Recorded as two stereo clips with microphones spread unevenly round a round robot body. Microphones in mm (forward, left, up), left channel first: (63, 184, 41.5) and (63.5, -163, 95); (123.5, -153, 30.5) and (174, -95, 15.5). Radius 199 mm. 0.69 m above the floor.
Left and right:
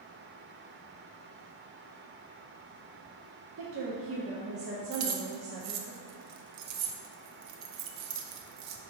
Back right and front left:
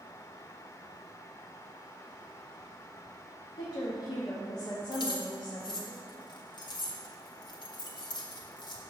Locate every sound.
3.6 s a woman speaking: 135° right, 0.8 m
4.9 s keys jangling: 130° right, 0.6 m